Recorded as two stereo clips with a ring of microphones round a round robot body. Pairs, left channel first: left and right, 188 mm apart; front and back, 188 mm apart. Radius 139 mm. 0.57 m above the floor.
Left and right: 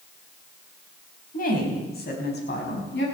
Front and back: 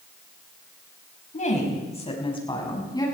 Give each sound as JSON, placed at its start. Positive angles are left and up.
{"t": 1.3, "sound": "a woman speaking", "azimuth_deg": 50, "distance_m": 5.0}